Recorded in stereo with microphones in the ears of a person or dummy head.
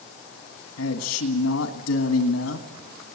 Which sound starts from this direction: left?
A man speaking, at 0.8 s.